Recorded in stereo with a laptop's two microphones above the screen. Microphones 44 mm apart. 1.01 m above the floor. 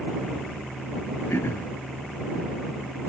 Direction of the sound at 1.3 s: 85° left.